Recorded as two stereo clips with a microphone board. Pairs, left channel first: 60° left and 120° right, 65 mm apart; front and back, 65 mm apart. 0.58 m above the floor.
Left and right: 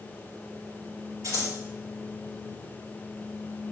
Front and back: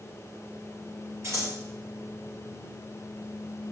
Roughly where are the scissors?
Behind right.